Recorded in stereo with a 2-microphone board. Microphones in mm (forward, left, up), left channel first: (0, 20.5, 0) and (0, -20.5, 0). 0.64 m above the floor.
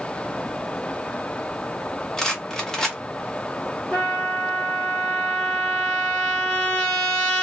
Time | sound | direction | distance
2.2 | a rattle | 15° left (ahead or behind) | 1.1 m
3.9 | a trumpet | 10° left (ahead or behind) | 2 m